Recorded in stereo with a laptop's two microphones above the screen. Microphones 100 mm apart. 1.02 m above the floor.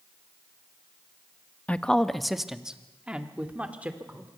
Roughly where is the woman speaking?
Centre.